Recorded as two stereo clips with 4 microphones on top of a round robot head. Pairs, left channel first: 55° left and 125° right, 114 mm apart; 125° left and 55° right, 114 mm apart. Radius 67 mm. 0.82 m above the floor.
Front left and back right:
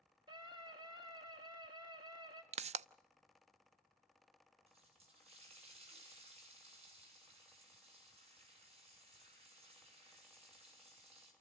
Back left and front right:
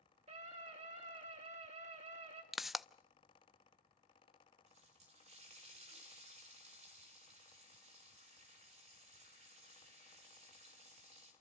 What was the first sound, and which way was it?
A scream, 75° right.